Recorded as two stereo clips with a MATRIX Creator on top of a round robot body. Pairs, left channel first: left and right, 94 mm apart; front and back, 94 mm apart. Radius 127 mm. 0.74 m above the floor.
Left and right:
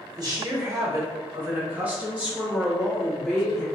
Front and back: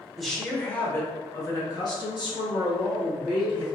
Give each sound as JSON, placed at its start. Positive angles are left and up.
{"t": 0.2, "sound": "a woman speaking", "azimuth_deg": -90, "distance_m": 1.0}